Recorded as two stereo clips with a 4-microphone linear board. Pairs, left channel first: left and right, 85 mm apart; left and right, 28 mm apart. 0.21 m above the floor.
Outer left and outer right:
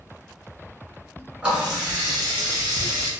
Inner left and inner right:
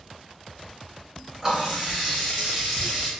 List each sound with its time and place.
1.4 s a running tap: 10° right (ahead or behind), 1.8 m